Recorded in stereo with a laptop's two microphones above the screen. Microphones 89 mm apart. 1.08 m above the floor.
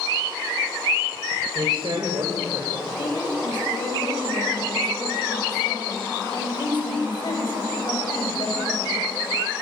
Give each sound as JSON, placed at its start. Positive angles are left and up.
{"t": 1.6, "sound": "a man speaking", "side_deg": -55, "distance_m": 4.0}
{"t": 3.0, "sound": "a woman speaking", "side_deg": 60, "distance_m": 6.5}